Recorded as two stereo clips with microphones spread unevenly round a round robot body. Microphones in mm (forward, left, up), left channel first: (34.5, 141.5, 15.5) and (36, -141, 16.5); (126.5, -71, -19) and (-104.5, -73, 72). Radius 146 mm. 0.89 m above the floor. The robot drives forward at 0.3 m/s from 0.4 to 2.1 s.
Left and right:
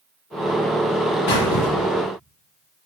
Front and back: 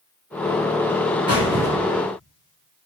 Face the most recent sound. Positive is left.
turn(degrees=115)